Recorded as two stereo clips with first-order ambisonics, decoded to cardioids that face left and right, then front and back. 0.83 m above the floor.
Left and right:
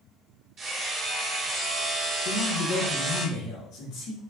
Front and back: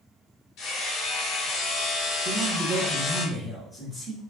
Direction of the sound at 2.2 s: 95° left.